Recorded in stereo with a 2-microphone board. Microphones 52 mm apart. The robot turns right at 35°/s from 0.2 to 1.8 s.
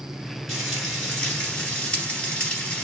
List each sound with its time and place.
0.5 s frying: 5° right, 1.9 m; by 2.8 s 45° left, 1.9 m